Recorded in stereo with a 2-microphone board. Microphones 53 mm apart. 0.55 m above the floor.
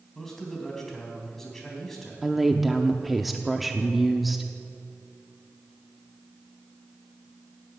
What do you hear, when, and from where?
0.1 s a man speaking: 10° left (ahead or behind), 3.5 m
2.2 s a woman speaking: centre (ahead or behind), 0.7 m